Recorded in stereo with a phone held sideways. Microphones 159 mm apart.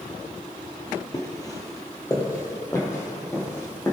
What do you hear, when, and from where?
1.1 s footsteps: 25° left (ahead or behind), 1.6 m; by 3.9 s 20° left (ahead or behind), 4 m